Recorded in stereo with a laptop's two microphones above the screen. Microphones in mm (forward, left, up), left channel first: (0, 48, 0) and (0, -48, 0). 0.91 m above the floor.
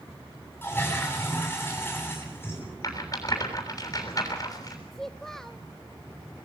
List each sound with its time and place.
0.6 s a toilet flushing: 20° left (ahead or behind), 8.5 m
2.8 s a rattle: 35° left (ahead or behind), 7 m
4.9 s a child speaking: 5° left (ahead or behind), 0.9 m